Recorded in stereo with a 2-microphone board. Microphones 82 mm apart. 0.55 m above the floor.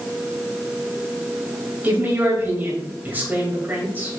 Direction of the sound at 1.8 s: 25° right (ahead or behind).